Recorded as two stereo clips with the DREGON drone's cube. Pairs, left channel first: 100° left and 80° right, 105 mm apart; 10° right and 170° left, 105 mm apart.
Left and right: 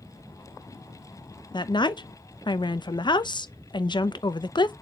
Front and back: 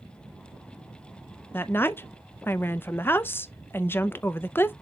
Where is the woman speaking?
55° left, 0.7 m.